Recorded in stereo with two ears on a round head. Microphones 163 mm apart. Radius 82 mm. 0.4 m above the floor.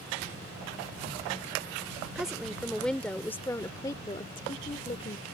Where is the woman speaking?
5° right (ahead or behind); by 5.2 s 35° left (ahead or behind).